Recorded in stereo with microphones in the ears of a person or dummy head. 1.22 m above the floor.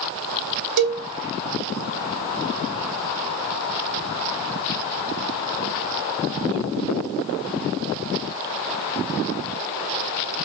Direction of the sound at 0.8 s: 75° right (ahead or behind).